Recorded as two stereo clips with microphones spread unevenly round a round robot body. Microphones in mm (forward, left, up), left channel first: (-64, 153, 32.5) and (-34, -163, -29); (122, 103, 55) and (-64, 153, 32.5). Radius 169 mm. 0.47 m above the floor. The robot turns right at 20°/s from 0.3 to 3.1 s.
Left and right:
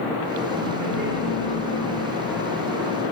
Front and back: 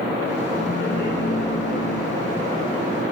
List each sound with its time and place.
0.6 s laughter: 5° right, 7 m; by 2.0 s 25° left, 7 m